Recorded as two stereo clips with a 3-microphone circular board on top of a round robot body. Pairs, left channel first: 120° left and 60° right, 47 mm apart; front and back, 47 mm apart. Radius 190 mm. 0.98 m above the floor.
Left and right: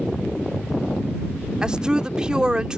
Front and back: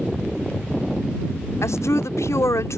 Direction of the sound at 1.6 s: 15° left.